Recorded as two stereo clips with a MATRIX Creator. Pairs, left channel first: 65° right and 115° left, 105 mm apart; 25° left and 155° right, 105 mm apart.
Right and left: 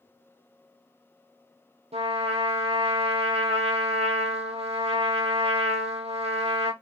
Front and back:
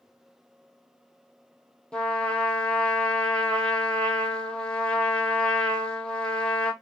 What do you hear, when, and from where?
1.9 s a trumpet: 105° left, 0.9 m